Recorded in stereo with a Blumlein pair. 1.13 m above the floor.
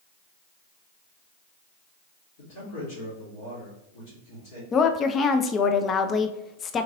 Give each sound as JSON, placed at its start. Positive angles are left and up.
{"t": 2.4, "sound": "a man speaking", "azimuth_deg": 50, "distance_m": 2.0}
{"t": 4.7, "sound": "a woman speaking", "azimuth_deg": 25, "distance_m": 0.5}